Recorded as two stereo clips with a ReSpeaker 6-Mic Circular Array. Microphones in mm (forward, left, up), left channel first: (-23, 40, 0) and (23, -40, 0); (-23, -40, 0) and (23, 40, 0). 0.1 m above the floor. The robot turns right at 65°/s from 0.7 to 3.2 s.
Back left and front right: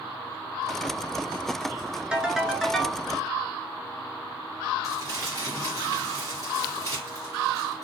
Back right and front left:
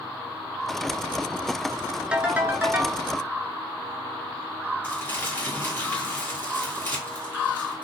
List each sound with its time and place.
2.1 s a ringtone: straight ahead, 0.5 m; by 3.0 s 60° left, 0.5 m
4.8 s crumpling: 70° right, 1.9 m